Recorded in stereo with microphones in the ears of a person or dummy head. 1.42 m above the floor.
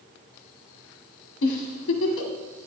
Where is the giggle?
70° left (ahead or behind), 1.8 m.